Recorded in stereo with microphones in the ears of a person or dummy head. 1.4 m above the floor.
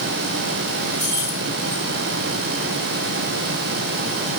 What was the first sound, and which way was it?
Keys jangling, 20° right (ahead or behind).